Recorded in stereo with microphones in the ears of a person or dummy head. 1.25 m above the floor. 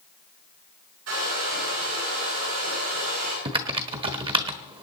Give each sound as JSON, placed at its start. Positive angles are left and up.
{"t": 1.1, "sound": "a hair dryer", "side_deg": -80, "distance_m": 9.5}
{"t": 3.5, "sound": "typing on a keyboard", "side_deg": -25, "distance_m": 1.2}